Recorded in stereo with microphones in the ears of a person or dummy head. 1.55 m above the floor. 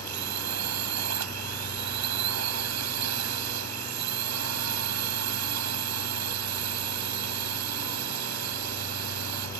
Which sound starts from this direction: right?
A drone, at 0.0 s.